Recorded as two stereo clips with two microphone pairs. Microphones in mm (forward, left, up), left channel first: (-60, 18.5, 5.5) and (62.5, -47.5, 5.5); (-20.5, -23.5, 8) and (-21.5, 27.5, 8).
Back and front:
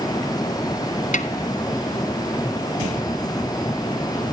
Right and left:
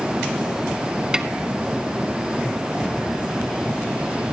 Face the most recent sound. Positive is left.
turn(degrees=-20)